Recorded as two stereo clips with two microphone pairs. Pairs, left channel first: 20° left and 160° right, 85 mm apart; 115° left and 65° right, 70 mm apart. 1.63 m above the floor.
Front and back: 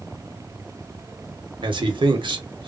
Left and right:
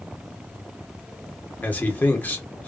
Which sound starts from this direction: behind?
A man speaking, at 1.6 s.